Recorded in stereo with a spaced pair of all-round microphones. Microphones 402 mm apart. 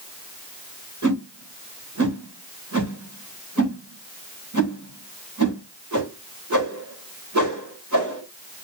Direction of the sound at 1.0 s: 45° right (ahead or behind).